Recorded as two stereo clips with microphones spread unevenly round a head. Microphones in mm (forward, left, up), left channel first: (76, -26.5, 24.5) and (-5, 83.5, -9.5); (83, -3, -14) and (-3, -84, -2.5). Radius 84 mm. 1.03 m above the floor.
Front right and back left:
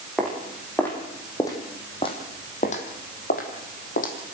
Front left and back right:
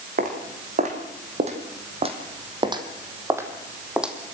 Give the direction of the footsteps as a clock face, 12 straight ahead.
5 o'clock.